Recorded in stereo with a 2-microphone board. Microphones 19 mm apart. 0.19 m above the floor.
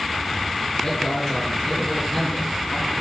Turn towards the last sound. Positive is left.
turn(degrees=35)  # may be behind; listen again after turning